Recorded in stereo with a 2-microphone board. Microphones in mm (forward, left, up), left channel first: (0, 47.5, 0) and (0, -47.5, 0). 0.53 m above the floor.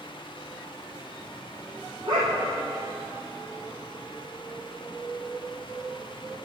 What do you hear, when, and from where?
2.1 s a dog barking: 45° right (ahead or behind), 5.5 m